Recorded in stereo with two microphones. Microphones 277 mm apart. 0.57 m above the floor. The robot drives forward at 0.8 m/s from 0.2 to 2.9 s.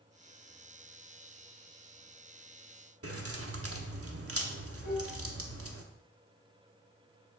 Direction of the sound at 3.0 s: 60° right (ahead or behind).